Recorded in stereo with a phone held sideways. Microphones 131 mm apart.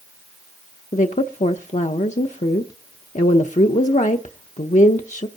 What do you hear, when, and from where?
0.9 s a woman speaking: 75° left (ahead or behind), 0.6 m